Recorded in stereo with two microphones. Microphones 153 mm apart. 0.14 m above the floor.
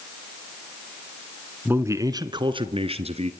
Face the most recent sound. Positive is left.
turn(degrees=-45)  # may be behind; listen again after turning